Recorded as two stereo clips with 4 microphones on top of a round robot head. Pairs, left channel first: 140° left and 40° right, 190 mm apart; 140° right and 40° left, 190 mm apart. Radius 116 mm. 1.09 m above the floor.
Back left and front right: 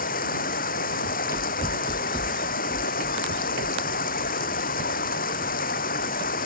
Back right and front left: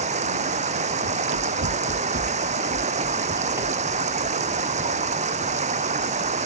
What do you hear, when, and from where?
0.0 s running water: 95° left
1.1 s running footsteps: 45° left; by 6.3 s 75° right